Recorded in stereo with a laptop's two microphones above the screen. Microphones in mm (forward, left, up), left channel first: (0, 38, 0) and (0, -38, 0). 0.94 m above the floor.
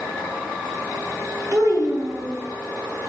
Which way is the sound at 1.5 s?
40° right (ahead or behind).